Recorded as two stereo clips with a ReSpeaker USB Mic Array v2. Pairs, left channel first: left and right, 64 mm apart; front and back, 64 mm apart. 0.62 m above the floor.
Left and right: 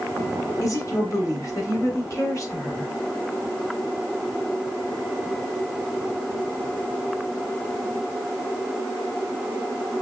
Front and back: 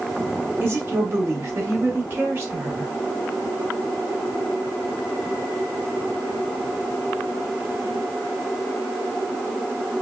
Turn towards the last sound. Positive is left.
turn(degrees=125)